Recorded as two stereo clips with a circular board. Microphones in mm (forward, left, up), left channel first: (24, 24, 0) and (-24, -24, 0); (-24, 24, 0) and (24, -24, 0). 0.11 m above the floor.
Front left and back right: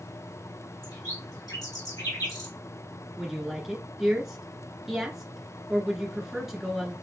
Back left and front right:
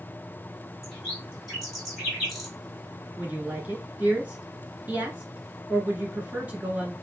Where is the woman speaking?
55° right, 1.4 m.